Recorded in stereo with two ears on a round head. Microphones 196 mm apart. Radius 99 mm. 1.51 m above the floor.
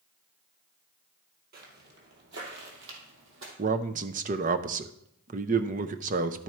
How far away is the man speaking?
About 0.6 m.